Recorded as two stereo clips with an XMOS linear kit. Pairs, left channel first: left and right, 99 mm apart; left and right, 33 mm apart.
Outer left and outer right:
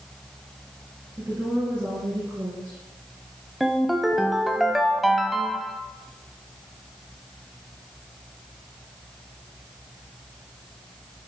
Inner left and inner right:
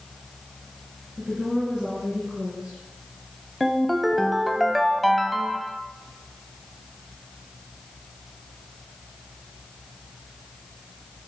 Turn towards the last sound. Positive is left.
turn(degrees=0)  # may be behind; listen again after turning